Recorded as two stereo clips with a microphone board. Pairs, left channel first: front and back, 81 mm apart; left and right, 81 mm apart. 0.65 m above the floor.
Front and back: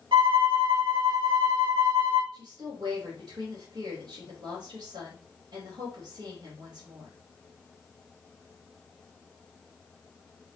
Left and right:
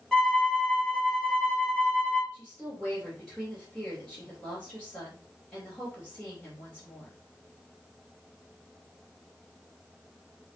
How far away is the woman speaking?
About 2.5 m.